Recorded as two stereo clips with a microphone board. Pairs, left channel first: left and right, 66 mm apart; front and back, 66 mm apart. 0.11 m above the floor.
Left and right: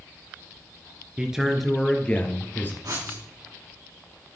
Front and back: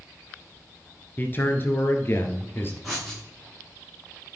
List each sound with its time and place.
1.2 s a man speaking: 25° right, 1.5 m; by 2.7 s 45° left, 2.0 m
2.8 s writing: 90° right, 6 m